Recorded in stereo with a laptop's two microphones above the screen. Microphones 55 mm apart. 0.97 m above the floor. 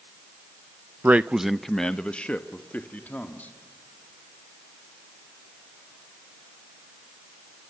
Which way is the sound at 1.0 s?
35° right (ahead or behind).